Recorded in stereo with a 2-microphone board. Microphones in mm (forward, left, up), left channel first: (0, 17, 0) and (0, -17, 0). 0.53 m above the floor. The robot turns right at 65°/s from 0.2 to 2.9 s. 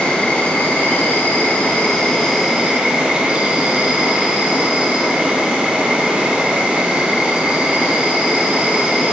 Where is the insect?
45° left, 1.3 m; by 9.1 s 140° right, 1.3 m.